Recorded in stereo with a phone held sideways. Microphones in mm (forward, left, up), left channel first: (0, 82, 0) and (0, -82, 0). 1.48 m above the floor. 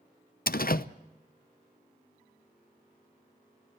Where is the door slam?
65° left (ahead or behind), 0.7 m.